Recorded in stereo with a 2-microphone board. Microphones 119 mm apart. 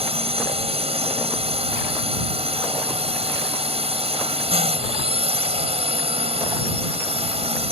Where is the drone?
55° right (ahead or behind).